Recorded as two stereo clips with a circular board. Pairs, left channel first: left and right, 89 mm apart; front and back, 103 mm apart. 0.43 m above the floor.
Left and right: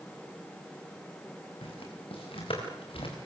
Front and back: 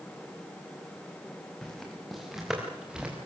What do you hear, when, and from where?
1.6 s footsteps: 85° left, 6.5 m; by 3.2 s 100° left, 7 m